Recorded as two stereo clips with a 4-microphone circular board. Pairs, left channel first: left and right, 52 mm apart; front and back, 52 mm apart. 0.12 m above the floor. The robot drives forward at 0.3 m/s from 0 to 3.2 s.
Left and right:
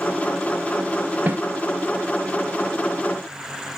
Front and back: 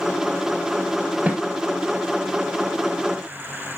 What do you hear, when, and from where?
1.3 s a snare drum: 130° right, 1.9 m